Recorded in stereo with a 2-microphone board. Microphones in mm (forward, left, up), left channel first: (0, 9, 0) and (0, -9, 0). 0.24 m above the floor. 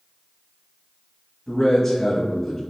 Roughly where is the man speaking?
Left.